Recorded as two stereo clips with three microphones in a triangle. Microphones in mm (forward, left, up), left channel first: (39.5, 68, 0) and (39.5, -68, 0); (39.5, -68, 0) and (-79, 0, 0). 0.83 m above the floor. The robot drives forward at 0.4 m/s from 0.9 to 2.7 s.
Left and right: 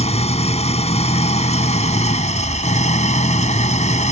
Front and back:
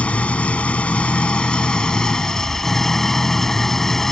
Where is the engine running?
50° left; by 4.1 s 55° left.